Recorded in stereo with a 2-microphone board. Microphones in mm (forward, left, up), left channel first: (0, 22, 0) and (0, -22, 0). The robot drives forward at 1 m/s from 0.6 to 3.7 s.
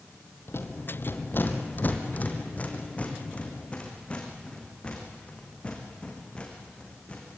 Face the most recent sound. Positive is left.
turn(degrees=25)  # may be behind; listen again after turning